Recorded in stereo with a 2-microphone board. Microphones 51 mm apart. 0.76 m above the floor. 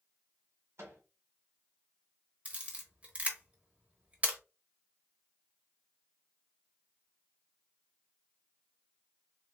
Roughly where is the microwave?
Right.